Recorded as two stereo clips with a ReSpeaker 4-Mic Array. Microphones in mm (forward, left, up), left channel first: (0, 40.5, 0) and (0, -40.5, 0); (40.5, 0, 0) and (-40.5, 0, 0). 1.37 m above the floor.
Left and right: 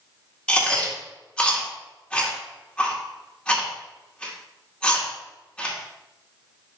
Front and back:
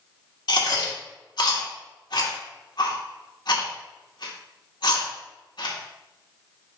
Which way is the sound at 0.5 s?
15° left.